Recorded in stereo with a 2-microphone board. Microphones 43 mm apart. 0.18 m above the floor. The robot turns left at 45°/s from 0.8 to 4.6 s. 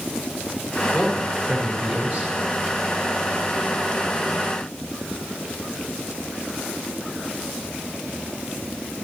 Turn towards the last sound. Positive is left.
turn(degrees=-135)